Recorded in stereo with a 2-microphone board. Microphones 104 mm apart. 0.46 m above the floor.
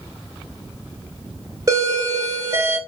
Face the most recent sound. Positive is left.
turn(degrees=-35)  # may be behind; listen again after turning